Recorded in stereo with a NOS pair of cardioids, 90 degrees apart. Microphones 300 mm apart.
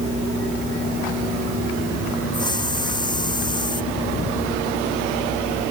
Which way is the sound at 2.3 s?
15° left.